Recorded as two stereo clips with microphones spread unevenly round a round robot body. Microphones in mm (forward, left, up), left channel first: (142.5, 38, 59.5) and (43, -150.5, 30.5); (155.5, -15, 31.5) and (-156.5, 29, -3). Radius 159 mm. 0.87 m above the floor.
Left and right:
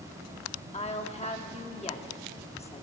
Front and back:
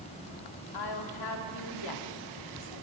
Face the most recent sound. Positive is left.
turn(degrees=0)